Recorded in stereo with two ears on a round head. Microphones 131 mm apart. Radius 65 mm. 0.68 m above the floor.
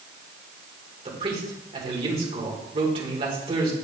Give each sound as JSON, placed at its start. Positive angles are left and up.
{"t": 1.1, "sound": "a man speaking", "side_deg": -40, "distance_m": 2.5}